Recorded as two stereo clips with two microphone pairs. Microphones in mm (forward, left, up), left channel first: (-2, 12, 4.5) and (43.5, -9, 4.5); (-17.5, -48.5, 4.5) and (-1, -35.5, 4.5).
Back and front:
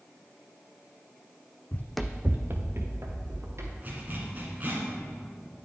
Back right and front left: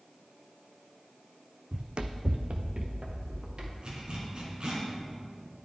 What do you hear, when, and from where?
1.7 s running footsteps: 105° left, 0.6 m; by 3.7 s straight ahead, 2.5 m
3.8 s a zipper: 20° left, 2 m